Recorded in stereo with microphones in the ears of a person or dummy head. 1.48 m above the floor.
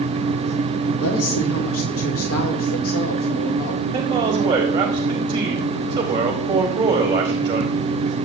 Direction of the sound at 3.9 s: 20° right (ahead or behind).